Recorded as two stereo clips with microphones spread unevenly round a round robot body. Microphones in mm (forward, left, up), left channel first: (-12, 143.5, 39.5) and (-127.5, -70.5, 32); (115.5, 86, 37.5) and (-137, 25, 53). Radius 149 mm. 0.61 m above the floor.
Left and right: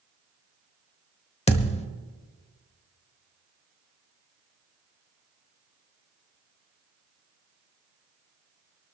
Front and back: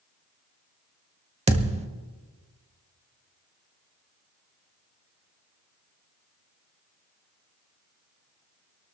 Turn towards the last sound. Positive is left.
turn(degrees=125)